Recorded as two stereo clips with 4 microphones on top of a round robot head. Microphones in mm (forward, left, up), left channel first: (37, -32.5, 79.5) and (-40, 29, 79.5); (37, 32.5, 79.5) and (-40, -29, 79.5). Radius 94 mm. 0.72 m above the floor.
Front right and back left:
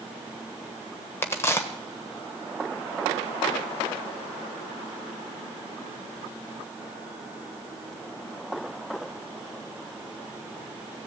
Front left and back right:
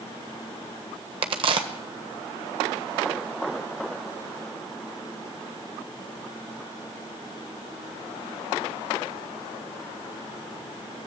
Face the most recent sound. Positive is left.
turn(degrees=-105)